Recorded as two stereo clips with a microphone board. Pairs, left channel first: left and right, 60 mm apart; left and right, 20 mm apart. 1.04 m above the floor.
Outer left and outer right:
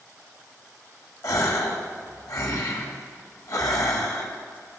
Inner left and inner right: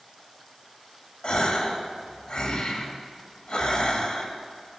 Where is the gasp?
70° left (ahead or behind), 1.7 m.